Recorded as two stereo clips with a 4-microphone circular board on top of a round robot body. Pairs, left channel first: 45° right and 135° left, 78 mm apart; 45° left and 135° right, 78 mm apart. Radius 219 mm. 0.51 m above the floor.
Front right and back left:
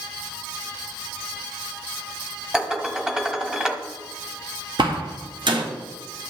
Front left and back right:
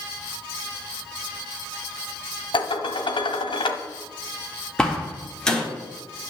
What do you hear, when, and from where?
2.5 s dishes clattering: 50° left, 1.1 m
4.8 s a door slam: 125° left, 1.7 m